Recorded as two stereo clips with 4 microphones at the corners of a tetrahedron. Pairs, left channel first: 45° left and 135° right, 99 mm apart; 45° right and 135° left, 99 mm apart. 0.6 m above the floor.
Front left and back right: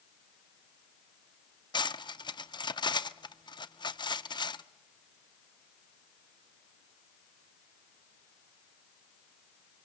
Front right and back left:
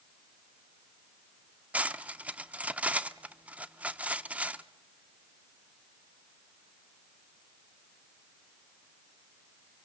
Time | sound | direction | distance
1.7 | cutlery clinking | 65° left | 0.6 m